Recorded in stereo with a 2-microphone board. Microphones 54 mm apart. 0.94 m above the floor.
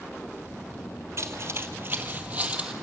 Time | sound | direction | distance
1.2 | footsteps | 50° right (ahead or behind) | 1.5 m